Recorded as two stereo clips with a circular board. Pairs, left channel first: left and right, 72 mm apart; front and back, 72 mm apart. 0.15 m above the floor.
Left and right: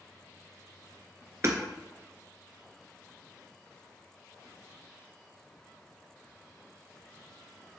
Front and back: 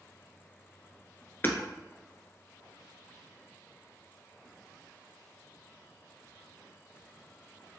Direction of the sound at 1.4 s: 50° right.